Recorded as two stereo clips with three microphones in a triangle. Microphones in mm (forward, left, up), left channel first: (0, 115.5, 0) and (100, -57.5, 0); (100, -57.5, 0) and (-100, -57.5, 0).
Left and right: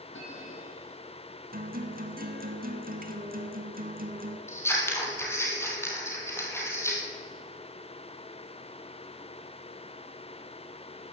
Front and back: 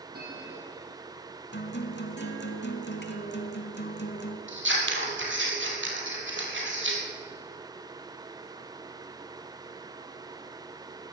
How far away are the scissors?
About 2.5 m.